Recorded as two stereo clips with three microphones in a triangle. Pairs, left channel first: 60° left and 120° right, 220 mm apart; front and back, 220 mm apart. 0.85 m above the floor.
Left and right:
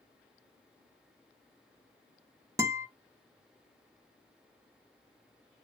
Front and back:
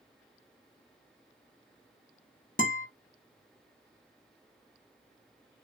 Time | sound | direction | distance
2.6 | a guitar | 45° right | 0.6 m